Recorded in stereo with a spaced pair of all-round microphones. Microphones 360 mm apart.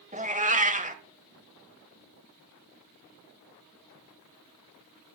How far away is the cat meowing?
About 1.0 m.